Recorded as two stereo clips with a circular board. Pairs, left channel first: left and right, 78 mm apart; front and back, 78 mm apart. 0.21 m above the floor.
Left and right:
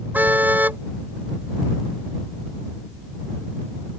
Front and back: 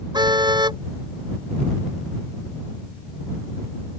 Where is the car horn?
160° right.